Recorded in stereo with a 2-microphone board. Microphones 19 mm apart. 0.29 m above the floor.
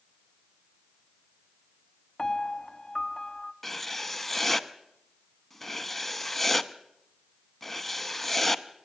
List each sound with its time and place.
2.2 s a piano: 25° left (ahead or behind), 0.7 m
3.6 s writing: 10° left (ahead or behind), 0.7 m